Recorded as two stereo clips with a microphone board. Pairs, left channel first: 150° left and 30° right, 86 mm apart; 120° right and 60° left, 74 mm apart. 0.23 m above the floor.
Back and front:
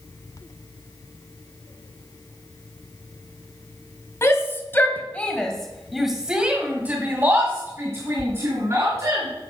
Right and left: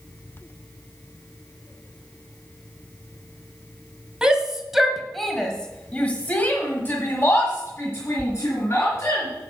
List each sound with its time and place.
4.2 s a shout: 130° left, 1.7 m; by 9.3 s 70° right, 3 m